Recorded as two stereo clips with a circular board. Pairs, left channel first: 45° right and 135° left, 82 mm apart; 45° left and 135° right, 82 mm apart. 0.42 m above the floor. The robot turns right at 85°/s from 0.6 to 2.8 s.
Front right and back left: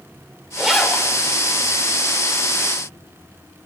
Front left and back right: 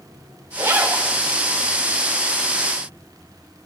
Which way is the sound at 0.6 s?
145° right.